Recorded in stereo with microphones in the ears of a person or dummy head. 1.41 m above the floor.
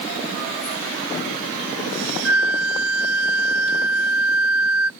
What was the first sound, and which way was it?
A flute, 70° right (ahead or behind).